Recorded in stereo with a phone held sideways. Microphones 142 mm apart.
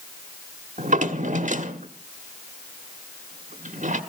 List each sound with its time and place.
0.8 s a drawer: 60° right (ahead or behind), 1.2 m